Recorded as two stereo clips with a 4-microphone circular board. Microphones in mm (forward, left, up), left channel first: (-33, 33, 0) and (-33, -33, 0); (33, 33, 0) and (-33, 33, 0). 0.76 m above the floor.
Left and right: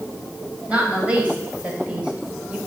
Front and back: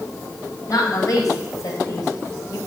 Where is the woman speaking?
20° right, 3.5 m; by 2.6 s 15° right, 2 m.